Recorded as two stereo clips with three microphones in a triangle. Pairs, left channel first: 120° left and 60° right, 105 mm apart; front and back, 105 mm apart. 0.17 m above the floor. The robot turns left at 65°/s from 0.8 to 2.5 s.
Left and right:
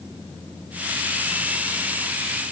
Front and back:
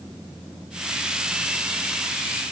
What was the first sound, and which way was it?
Only background noise.